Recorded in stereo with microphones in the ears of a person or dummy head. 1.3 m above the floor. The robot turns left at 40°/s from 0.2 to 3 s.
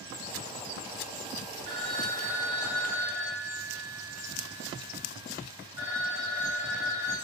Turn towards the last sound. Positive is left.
turn(degrees=-165)